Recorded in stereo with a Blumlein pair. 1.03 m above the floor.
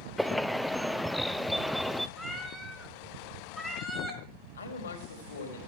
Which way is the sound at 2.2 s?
5° left.